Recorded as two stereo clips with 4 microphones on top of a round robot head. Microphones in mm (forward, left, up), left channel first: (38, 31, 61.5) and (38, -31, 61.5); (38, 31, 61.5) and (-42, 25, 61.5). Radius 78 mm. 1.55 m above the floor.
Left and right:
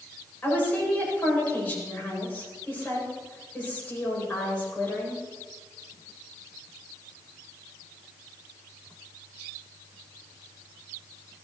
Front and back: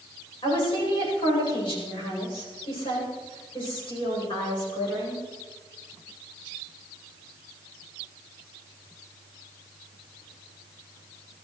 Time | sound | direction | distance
0.4 | a woman speaking | 25° left | 8.5 m